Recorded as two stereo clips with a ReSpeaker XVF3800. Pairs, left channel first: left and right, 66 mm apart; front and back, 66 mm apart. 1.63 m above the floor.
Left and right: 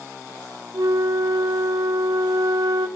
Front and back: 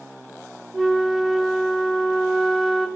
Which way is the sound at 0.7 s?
90° right.